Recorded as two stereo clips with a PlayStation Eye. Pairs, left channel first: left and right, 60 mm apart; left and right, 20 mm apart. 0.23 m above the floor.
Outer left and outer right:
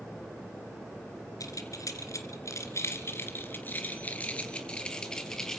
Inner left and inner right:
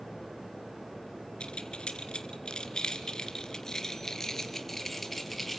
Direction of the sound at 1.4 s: 70° left (ahead or behind).